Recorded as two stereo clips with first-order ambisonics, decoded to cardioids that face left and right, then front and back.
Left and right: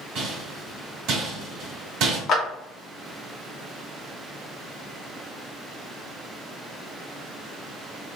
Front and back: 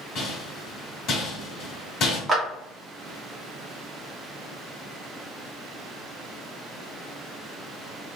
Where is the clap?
115° left, 0.7 m.